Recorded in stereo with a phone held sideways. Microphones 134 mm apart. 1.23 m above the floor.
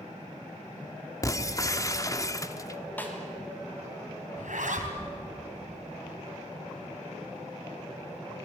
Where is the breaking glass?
25° left (ahead or behind), 1.0 m.